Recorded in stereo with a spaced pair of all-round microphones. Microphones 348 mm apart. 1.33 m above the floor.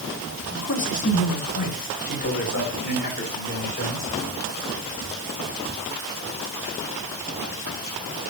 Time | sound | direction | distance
0.5 | a man speaking | 65° left (ahead or behind) | 4 m